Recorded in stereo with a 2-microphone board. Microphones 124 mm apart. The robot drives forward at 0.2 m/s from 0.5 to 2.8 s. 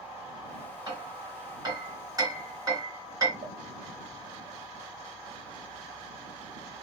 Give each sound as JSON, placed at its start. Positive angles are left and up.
{"t": 0.9, "sound": "hammering", "side_deg": -30, "distance_m": 2.5}
{"t": 3.4, "sound": "a pop", "side_deg": -70, "distance_m": 0.5}